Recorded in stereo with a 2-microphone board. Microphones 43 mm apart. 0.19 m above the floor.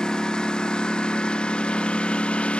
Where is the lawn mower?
15° left (ahead or behind); by 2.6 s 25° left (ahead or behind).